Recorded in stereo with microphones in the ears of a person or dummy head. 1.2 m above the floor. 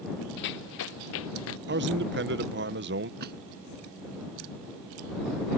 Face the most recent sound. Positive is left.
turn(degrees=-60)  # may be behind; listen again after turning